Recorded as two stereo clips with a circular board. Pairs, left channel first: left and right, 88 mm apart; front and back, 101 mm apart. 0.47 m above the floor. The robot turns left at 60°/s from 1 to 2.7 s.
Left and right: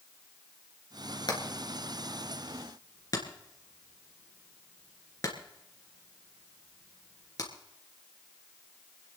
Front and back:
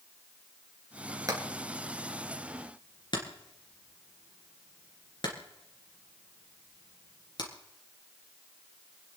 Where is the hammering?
125° left, 3 m; by 7.5 s 40° left, 3 m.